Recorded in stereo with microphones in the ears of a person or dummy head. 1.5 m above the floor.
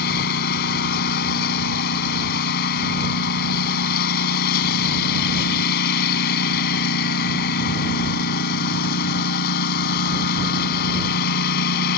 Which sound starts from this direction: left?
A lawn mower, at 0.0 s.